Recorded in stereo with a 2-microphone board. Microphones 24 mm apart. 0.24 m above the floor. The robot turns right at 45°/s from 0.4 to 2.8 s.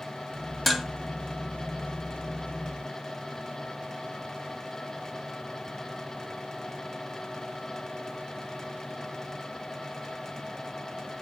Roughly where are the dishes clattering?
Centre.